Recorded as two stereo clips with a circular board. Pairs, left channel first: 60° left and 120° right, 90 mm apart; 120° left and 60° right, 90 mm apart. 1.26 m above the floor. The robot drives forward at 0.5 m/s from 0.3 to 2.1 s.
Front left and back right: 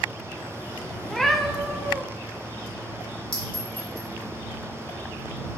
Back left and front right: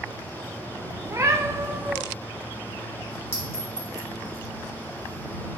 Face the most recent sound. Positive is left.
turn(degrees=60)